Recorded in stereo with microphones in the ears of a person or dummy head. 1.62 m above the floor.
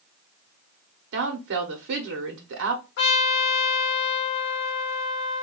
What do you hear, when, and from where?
1.1 s a woman speaking: 60° right (ahead or behind), 1.0 m
3.0 s a trumpet: 65° left (ahead or behind), 1.1 m